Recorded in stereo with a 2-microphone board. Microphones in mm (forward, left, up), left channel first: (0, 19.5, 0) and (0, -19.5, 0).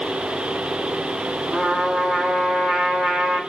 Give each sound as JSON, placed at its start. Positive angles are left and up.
{"t": 1.5, "sound": "a trumpet", "side_deg": -10, "distance_m": 0.8}